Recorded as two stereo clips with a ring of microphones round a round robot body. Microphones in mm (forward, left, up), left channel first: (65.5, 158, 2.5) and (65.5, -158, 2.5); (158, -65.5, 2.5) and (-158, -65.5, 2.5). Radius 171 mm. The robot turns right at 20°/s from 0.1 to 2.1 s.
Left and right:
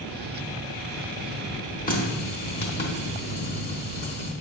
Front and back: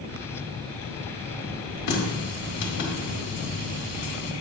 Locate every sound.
1.9 s a running tap: 25° left, 1.3 m; by 4.3 s 30° left, 1.3 m